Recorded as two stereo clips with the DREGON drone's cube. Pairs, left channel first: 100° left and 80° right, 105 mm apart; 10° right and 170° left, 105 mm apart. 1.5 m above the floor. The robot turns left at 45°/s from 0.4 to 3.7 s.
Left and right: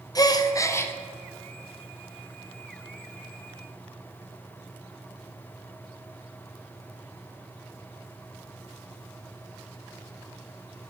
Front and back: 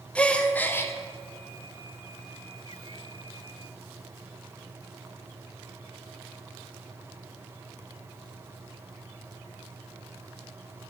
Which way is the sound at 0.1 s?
60° left.